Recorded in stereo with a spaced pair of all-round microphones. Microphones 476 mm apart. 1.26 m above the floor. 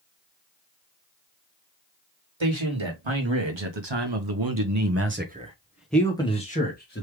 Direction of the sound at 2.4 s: 75° right (ahead or behind).